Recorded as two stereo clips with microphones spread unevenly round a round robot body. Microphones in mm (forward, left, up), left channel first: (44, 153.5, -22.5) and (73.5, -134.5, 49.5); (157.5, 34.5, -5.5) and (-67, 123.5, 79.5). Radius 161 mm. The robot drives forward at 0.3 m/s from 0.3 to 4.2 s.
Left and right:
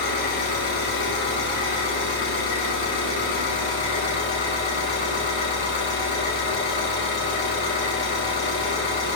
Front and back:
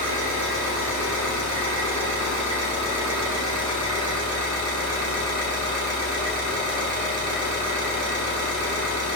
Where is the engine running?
125° left, 4.5 m; by 9.2 s 140° left, 5 m.